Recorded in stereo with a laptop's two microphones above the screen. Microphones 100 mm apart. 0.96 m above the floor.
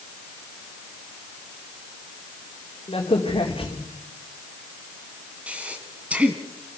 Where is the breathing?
15° right (ahead or behind), 2 m.